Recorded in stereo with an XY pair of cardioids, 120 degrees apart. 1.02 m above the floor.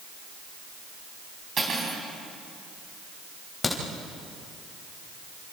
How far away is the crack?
About 4 m.